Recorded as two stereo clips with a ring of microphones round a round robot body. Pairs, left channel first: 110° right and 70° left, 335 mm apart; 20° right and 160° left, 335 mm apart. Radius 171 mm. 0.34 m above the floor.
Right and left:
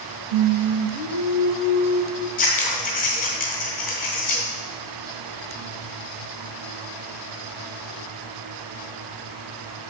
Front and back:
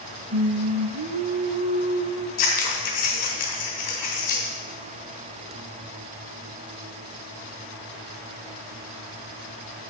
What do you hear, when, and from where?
0.3 s singing: 100° left, 1.1 m
2.4 s scissors: 50° right, 2.5 m